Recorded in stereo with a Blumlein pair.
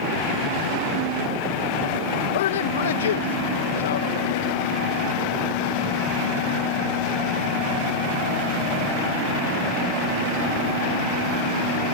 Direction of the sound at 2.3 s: 60° left.